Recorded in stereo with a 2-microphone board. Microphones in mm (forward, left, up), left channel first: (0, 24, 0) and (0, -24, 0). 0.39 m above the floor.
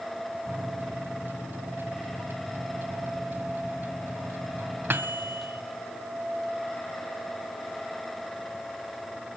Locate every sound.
0.5 s a microwave: 45° right (ahead or behind), 1.5 m